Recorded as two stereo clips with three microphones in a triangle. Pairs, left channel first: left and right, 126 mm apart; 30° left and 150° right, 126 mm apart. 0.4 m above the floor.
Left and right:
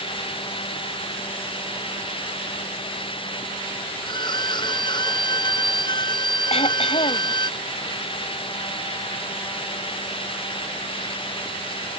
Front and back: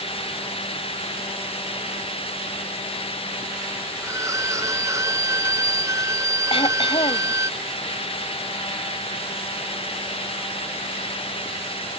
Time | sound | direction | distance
4.0 | a violin | 145° left | ?
6.5 | throat clearing | 65° left | ?